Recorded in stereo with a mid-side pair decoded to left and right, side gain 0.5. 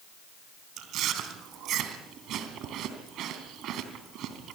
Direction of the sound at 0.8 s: 70° right.